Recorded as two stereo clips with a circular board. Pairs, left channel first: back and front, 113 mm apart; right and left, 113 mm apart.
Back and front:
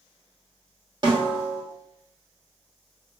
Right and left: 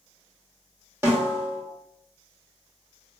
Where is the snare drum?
30° left, 1.3 m.